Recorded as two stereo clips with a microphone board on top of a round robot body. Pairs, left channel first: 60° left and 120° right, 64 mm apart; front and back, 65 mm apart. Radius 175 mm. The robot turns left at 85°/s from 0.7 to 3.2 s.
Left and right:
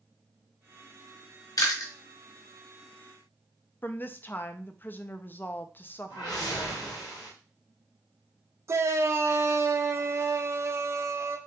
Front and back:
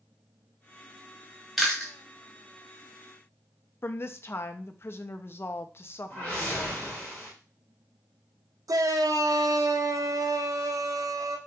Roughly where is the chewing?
Left.